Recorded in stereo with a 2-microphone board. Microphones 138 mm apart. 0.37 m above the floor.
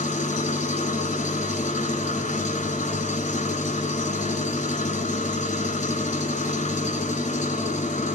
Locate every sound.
0.0 s an engine running: 65° left (ahead or behind), 1.0 m